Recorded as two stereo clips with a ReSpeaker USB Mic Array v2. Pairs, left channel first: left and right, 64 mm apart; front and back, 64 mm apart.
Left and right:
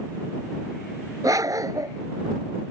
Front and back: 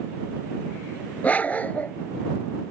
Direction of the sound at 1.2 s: 65° right.